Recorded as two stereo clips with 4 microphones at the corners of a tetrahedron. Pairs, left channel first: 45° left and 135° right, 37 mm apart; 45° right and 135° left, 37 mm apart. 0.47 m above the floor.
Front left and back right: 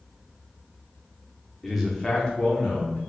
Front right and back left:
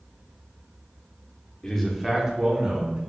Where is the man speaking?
60° right, 0.7 m; by 3.0 s 100° left, 1.3 m.